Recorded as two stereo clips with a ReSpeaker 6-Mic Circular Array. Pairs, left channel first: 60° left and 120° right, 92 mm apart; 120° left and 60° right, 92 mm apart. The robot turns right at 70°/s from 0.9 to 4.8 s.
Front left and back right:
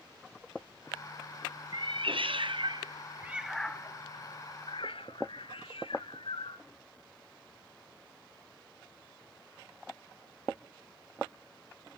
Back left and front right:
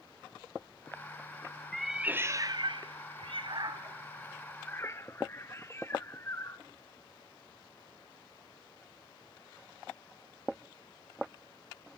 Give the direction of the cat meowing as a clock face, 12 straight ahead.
5 o'clock.